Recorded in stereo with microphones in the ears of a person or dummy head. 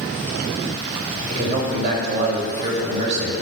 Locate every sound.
1.3 s a man speaking: 40° right (ahead or behind), 3 m